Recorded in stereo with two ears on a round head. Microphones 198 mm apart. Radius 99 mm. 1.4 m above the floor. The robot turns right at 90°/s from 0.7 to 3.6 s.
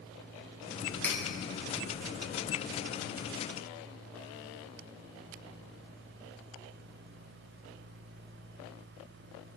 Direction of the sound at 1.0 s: 10° left (ahead or behind).